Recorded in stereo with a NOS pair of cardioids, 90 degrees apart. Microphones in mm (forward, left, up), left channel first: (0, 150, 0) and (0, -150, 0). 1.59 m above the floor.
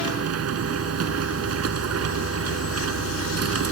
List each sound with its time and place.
0.0 s a machine running: 55° right